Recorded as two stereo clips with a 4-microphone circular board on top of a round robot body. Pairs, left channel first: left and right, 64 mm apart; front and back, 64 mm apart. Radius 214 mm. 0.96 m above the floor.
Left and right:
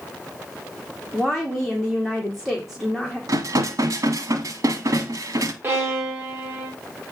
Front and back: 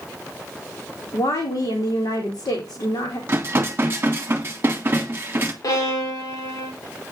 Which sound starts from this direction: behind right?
Dishes clattering, at 3.3 s.